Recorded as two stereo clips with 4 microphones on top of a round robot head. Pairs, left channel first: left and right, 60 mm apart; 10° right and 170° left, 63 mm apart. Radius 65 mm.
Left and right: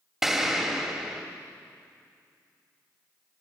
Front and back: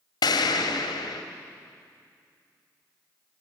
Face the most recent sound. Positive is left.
turn(degrees=-5)